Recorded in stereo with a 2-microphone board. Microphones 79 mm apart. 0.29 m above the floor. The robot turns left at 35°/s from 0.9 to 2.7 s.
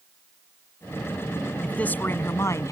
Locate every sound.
1.6 s a man speaking: 165° left; by 2.7 s 130° left